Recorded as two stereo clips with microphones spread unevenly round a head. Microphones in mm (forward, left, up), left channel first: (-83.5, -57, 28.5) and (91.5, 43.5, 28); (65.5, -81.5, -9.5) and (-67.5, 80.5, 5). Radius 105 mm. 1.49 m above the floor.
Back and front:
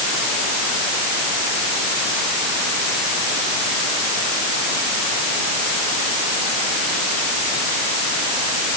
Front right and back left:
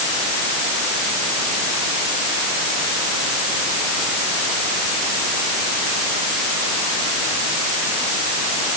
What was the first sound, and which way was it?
Only background noise.